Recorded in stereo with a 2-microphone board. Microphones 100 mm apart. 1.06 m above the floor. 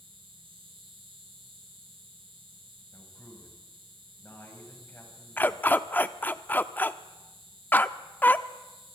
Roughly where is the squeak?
No squeak in this recording.